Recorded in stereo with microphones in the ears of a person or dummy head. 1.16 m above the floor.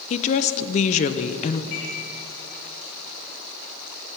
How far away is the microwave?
About 4 m.